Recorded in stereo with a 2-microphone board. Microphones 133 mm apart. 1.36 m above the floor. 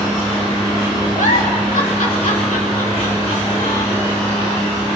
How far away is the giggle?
About 3 m.